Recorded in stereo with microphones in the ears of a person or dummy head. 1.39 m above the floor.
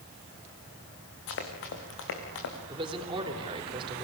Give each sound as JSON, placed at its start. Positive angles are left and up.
{"t": 1.3, "sound": "running footsteps", "side_deg": 70, "distance_m": 5.0}
{"t": 2.7, "sound": "a man speaking", "side_deg": -30, "distance_m": 3.5}